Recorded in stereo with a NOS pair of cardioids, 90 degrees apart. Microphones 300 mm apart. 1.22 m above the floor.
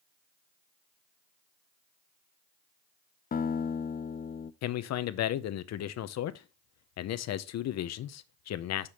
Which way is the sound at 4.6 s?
65° left.